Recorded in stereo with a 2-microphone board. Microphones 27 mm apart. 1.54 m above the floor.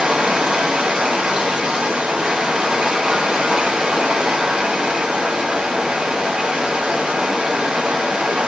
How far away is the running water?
About 1.4 m.